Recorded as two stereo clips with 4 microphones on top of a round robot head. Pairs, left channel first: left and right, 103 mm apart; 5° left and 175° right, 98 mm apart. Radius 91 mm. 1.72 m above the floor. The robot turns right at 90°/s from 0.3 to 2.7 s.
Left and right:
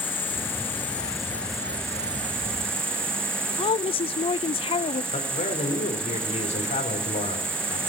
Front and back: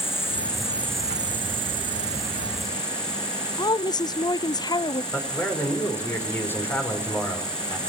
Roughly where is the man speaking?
Left.